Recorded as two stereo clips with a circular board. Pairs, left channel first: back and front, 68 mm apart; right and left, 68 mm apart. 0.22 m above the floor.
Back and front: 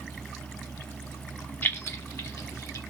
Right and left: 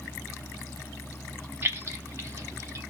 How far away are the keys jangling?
About 0.8 m.